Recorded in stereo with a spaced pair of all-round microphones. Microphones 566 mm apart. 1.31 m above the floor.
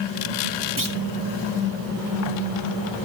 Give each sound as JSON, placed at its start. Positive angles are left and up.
{"t": 0.8, "sound": "a clunk", "side_deg": -35, "distance_m": 1.9}